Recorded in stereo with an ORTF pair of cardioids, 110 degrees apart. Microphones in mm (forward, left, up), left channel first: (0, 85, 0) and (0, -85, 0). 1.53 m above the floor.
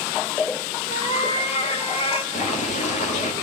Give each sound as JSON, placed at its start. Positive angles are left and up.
{"t": 0.9, "sound": "a cat meowing", "azimuth_deg": 40, "distance_m": 3.0}
{"t": 2.3, "sound": "boiling", "azimuth_deg": 45, "distance_m": 2.5}